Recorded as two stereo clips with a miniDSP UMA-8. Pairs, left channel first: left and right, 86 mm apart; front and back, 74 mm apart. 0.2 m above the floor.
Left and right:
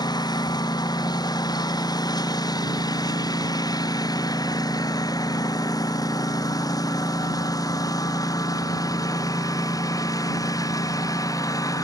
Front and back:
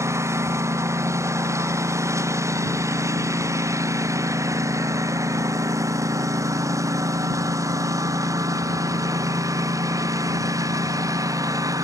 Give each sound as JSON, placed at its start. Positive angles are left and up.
{"t": 0.0, "sound": "a lawn mower", "azimuth_deg": 130}